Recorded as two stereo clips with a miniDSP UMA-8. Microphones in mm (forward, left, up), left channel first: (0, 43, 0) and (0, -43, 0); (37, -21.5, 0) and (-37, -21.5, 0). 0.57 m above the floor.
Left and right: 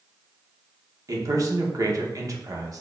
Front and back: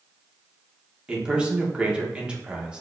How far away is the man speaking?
About 0.9 m.